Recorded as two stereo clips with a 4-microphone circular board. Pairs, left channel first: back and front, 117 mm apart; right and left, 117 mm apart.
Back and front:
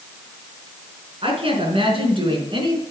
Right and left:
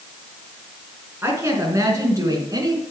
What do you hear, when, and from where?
1.2 s a woman speaking: 25° left, 4 m; by 2.8 s 40° left, 4 m